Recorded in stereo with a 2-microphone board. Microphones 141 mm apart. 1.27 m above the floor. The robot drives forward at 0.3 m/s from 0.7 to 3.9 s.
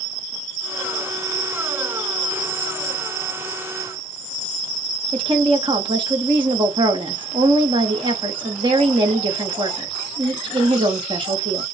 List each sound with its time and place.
5.1 s a woman speaking: 35° right (ahead or behind), 1.1 m